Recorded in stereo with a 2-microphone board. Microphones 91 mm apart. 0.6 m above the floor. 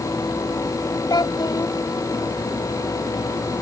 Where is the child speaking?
50° left (ahead or behind).